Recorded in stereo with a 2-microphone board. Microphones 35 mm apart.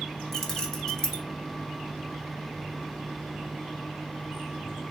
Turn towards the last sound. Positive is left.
turn(degrees=10)  # may be behind; listen again after turning